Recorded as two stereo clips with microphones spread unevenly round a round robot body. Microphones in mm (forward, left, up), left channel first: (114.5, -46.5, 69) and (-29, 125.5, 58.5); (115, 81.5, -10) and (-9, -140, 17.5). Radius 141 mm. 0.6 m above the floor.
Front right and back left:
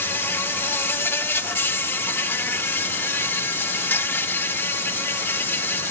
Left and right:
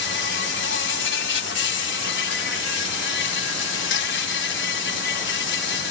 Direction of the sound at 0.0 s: 30° left.